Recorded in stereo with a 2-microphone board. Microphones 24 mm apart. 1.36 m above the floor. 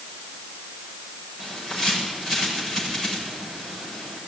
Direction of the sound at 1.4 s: 15° left (ahead or behind).